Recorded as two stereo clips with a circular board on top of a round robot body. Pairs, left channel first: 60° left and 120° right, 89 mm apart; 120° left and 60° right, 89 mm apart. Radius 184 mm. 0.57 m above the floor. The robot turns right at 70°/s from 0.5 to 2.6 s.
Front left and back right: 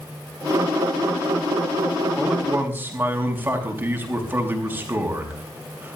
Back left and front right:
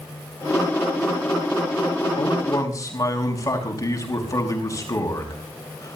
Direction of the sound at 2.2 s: 140° left.